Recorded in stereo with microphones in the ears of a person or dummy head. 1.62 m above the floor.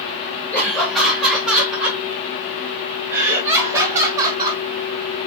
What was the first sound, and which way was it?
Laughter, 10° left (ahead or behind).